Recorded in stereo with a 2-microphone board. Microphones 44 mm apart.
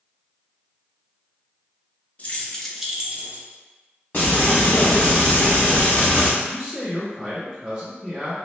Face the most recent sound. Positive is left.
turn(degrees=-25)  # may be behind; listen again after turning